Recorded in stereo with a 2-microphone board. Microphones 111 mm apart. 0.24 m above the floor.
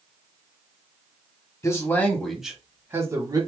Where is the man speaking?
30° left (ahead or behind), 1.3 m; by 3.5 s 40° right (ahead or behind), 1.5 m.